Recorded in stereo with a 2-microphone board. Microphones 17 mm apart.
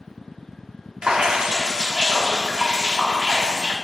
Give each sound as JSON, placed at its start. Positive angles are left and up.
{"t": 1.0, "sound": "dripping", "side_deg": -60, "distance_m": 1.2}